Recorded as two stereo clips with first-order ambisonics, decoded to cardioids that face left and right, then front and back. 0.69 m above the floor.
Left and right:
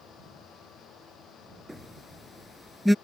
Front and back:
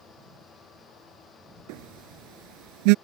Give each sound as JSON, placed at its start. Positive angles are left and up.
{"t": 1.7, "sound": "a phone buzzing", "azimuth_deg": 180}